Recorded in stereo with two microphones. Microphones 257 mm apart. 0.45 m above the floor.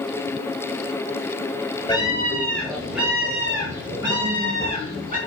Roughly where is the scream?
Centre.